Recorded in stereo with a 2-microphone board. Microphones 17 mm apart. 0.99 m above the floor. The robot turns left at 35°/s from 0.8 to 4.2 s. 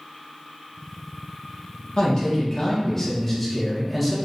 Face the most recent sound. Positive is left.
turn(degrees=-5)